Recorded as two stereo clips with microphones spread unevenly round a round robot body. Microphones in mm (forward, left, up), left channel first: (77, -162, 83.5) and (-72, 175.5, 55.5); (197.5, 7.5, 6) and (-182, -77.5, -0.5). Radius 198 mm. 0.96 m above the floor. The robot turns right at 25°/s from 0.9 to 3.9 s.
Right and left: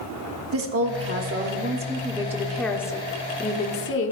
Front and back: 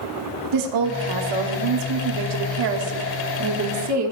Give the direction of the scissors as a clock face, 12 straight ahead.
I don't hear scissors.